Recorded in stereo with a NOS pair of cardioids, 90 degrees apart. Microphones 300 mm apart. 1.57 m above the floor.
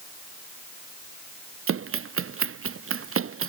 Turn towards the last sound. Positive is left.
turn(degrees=-45)